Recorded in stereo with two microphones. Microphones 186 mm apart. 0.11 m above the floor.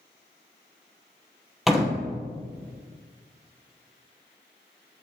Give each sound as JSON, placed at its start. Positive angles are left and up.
{"t": 1.7, "sound": "a door slam", "side_deg": 0, "distance_m": 2.0}